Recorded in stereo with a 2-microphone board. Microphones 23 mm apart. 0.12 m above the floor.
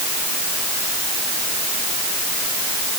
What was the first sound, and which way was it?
Only background noise.